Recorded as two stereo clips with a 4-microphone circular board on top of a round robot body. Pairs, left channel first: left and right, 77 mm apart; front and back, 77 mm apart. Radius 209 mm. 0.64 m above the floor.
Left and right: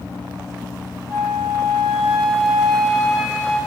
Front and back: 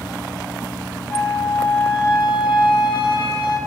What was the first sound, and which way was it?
A flute, straight ahead.